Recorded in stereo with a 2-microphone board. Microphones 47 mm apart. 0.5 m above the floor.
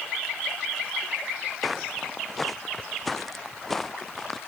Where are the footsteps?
Centre (ahead or behind); by 4.4 s 5° left (ahead or behind).